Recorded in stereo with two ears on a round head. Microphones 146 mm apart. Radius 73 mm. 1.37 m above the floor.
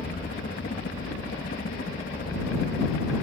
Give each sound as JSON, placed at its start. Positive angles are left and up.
{"t": 0.0, "sound": "a helicopter", "side_deg": 60}